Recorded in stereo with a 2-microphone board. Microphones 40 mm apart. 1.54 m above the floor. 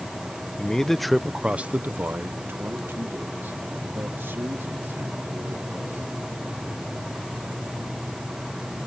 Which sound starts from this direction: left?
A man speaking, at 0.6 s.